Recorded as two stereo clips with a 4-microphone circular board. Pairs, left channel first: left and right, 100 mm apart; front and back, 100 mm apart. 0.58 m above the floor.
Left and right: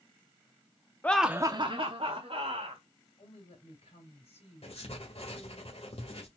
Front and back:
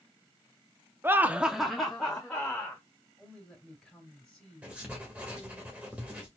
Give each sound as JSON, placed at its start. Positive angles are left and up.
{"t": 1.0, "sound": "laughter", "azimuth_deg": 140, "distance_m": 0.6}
{"t": 3.2, "sound": "a woman speaking", "azimuth_deg": 85, "distance_m": 3.0}
{"t": 4.6, "sound": "writing", "azimuth_deg": 100, "distance_m": 1.8}